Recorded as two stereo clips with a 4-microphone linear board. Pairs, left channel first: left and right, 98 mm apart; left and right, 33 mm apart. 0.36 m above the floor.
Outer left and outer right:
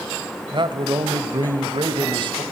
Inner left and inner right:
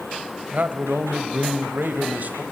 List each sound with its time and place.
0.5 s a man speaking: 50° right (ahead or behind), 1.5 m